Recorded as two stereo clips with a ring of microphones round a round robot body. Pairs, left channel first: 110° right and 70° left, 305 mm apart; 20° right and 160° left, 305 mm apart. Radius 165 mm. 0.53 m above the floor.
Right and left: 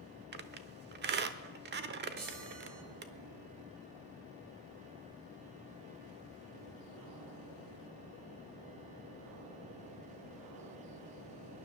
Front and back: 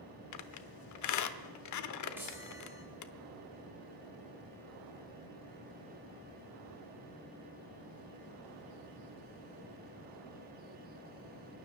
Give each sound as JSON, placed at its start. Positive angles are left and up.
{"t": 0.3, "sound": "a squeak", "azimuth_deg": 10, "distance_m": 0.8}
{"t": 2.2, "sound": "a chime", "azimuth_deg": 75, "distance_m": 4.0}